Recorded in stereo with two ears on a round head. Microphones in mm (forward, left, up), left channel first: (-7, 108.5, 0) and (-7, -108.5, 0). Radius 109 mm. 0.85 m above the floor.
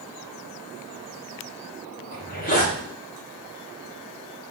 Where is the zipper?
35° left (ahead or behind), 2 m.